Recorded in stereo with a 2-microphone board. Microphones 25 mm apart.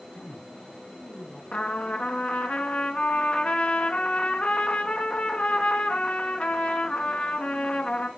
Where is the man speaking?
55° left (ahead or behind), 4.5 m; by 1.4 s 60° left (ahead or behind), 5 m.